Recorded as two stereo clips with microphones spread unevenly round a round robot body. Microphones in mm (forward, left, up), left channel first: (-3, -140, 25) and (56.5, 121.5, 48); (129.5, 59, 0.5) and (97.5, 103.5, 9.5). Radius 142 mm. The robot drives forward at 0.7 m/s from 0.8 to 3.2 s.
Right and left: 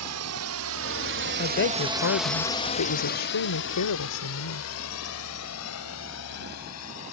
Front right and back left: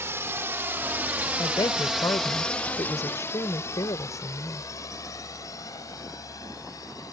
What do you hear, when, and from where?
0.0 s a drone: 95° left; by 7.1 s 75° right
1.4 s a woman speaking: 55° right; by 4.7 s 80° right